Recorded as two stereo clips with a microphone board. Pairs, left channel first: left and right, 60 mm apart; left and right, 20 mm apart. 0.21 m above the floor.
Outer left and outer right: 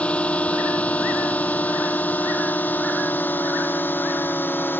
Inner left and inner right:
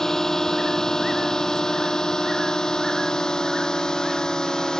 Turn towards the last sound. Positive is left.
turn(degrees=35)  # may be behind; listen again after turning